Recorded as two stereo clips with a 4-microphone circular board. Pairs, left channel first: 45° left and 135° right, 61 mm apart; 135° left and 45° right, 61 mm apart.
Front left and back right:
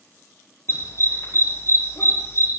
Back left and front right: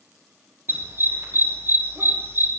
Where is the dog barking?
5° left, 6.5 m.